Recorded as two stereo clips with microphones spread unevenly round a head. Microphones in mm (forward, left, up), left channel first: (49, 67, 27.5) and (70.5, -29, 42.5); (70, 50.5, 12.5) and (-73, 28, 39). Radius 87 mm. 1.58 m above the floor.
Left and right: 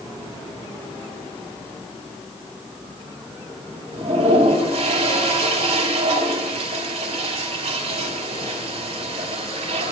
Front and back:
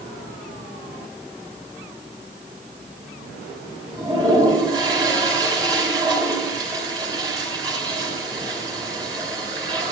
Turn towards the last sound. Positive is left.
turn(degrees=-110)